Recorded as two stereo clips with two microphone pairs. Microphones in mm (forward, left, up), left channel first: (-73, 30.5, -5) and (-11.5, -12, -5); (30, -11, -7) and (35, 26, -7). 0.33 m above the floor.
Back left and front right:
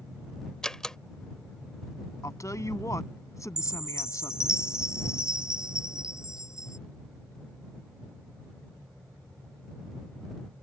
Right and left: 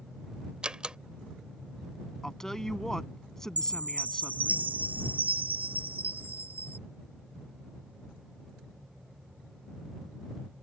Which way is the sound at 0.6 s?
80° left.